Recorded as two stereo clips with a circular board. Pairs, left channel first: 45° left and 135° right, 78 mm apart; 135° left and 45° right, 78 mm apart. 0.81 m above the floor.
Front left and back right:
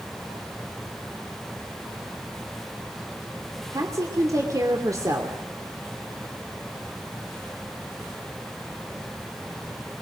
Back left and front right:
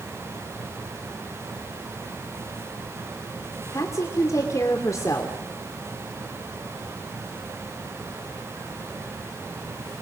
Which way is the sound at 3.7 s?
Straight behind.